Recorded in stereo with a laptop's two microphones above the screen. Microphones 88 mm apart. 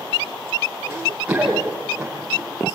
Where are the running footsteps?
10° right (ahead or behind), 8.5 m; by 2.4 s 5° right (ahead or behind), 7.5 m.